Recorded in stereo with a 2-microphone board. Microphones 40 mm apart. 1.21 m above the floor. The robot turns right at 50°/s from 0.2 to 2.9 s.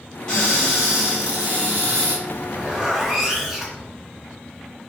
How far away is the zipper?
About 0.8 m.